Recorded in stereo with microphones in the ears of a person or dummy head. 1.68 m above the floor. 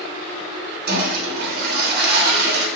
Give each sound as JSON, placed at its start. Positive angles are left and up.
{"t": 0.9, "sound": "a toilet flushing", "side_deg": -55, "distance_m": 0.9}